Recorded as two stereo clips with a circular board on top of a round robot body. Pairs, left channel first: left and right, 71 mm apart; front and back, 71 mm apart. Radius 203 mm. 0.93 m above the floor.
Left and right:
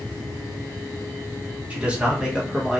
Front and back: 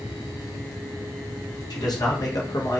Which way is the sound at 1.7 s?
20° right.